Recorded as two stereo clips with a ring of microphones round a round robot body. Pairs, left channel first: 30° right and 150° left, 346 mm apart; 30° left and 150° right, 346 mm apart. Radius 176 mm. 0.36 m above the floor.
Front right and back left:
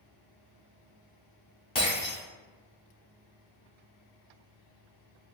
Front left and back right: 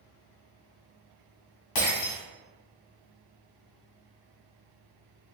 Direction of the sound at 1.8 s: 45° left.